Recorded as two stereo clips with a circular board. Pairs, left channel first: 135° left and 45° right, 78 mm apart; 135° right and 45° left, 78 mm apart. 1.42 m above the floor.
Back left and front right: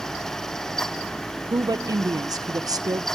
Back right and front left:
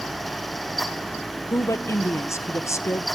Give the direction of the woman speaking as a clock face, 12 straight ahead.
3 o'clock.